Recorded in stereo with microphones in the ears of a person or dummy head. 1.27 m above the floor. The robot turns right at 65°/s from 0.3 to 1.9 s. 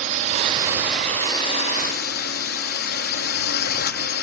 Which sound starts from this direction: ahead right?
A drone, at 0.0 s.